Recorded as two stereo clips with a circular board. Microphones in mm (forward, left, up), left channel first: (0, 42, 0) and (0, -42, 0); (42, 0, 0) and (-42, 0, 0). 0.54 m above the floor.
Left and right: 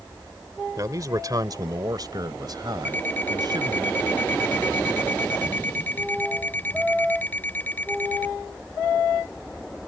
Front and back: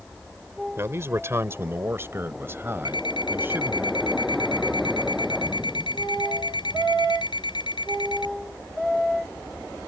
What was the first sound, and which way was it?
A man speaking, 130° right.